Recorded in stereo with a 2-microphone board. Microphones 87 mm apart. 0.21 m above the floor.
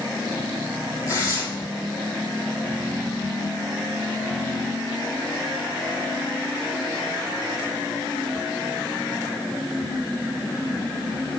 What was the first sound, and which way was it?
Tearing paper, 35° left (ahead or behind).